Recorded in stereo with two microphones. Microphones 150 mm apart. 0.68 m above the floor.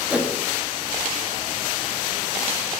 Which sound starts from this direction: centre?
A whoosh, at 0.1 s.